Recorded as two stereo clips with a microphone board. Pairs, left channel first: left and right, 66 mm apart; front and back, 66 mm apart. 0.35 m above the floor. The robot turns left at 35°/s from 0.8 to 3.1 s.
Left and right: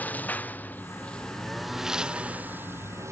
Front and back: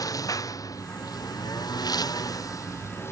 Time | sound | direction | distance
0.0 | a lawn mower | 25° left | ?